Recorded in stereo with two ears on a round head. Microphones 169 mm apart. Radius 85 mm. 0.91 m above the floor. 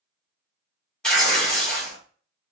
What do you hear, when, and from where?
1.0 s tearing paper: 5° left (ahead or behind), 1.4 m